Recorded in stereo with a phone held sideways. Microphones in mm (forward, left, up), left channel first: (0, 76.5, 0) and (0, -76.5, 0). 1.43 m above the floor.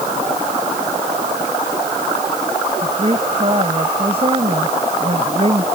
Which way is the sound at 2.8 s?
40° right (ahead or behind).